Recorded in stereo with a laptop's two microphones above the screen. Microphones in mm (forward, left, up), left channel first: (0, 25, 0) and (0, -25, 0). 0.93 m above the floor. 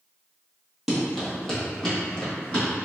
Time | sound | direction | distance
0.9 | running footsteps | 5° right (ahead or behind) | 1.3 m